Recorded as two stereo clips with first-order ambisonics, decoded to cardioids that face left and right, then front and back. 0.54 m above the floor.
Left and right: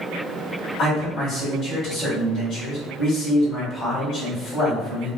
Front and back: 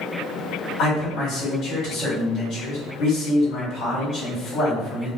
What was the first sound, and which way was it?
A man speaking, 50° left.